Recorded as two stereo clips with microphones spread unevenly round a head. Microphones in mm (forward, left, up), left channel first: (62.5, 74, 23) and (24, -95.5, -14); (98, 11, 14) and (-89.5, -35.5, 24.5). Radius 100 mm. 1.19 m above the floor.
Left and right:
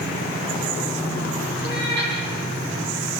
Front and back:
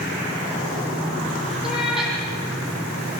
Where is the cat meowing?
80° right, 9 m.